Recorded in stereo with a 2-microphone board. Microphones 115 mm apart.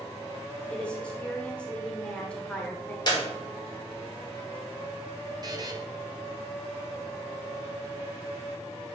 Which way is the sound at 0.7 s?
10° left (ahead or behind).